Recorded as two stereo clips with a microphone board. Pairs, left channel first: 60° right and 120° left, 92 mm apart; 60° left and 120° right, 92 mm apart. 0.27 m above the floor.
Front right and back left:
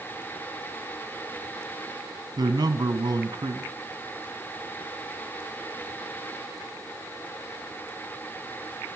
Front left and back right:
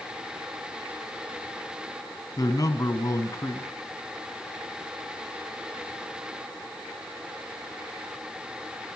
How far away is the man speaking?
About 1.9 m.